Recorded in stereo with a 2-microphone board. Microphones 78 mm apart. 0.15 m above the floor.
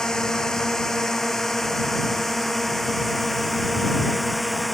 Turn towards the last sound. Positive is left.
turn(degrees=0)  # may be behind; listen again after turning